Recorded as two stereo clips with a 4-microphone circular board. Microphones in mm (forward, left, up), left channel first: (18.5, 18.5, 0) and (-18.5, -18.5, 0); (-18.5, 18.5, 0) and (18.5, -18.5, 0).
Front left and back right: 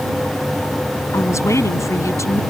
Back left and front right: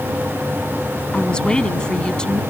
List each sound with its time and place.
1.1 s a woman speaking: 60° left